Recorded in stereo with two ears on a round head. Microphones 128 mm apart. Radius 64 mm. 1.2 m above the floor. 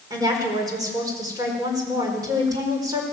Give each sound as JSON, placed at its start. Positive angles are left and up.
{"t": 0.1, "sound": "a woman speaking", "side_deg": -25, "distance_m": 4.5}